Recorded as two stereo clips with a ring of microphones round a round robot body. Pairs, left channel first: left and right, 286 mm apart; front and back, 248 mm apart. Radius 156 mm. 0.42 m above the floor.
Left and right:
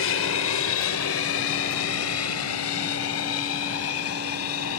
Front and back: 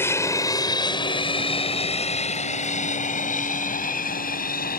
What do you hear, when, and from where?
0.0 s an aircraft: 75° left; by 4.8 s 50° left